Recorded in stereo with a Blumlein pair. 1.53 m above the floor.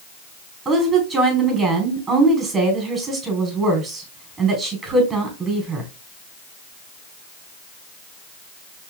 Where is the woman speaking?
15° right, 4.5 m.